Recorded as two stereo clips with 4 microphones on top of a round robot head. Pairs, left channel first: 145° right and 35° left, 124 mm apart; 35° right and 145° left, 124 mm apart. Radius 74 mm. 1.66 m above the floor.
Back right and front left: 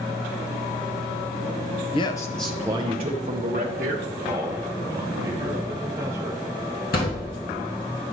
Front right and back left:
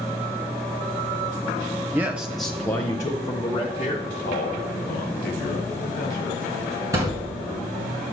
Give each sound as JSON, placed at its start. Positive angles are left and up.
{"t": 1.9, "sound": "a man speaking", "azimuth_deg": -155, "distance_m": 0.5}
{"t": 4.0, "sound": "a man speaking", "azimuth_deg": -30, "distance_m": 1.1}
{"t": 6.9, "sound": "a thud", "azimuth_deg": -150, "distance_m": 3.0}